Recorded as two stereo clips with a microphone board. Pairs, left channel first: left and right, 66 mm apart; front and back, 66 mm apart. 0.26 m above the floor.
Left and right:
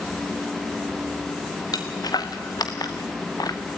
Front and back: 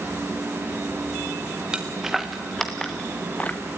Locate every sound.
1.7 s footsteps: 100° left, 2 m; by 3.6 s 65° left, 1.7 m